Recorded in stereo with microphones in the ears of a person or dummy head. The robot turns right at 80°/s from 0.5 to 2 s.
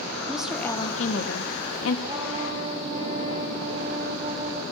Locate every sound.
0.3 s a woman speaking: 5° right, 1.5 m; by 2.0 s 115° left, 1.5 m
2.1 s a trumpet: 30° right (ahead or behind), 3 m